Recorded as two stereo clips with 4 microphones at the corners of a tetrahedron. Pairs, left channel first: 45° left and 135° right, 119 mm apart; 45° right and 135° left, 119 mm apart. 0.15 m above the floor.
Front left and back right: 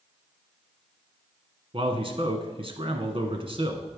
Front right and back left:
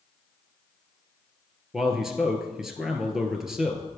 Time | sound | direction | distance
1.7 | a man speaking | 140° right | 1.5 m